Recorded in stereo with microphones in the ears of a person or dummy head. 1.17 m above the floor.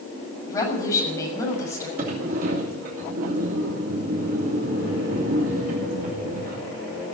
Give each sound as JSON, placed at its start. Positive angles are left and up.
{"t": 0.5, "sound": "a woman speaking", "side_deg": 25, "distance_m": 6.5}
{"t": 2.0, "sound": "a sliding door", "side_deg": -50, "distance_m": 2.5}